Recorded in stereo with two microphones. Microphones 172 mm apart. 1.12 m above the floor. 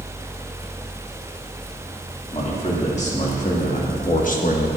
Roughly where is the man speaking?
Left.